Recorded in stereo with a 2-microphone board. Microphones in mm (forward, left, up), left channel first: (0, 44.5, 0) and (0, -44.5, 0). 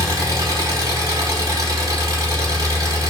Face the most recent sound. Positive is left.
turn(degrees=-40)  # may be behind; listen again after turning